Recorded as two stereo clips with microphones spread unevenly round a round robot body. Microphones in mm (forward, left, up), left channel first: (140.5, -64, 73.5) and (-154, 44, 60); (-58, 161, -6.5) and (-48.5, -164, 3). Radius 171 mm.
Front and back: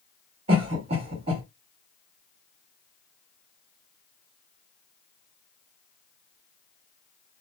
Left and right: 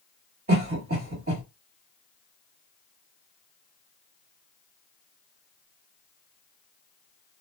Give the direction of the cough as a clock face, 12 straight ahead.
5 o'clock.